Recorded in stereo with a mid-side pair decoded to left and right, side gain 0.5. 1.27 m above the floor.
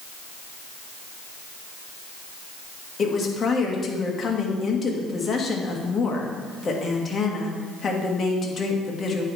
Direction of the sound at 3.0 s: 35° left.